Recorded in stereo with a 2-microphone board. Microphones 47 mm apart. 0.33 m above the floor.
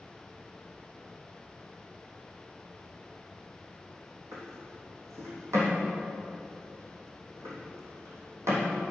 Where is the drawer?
85° right, 3.5 m.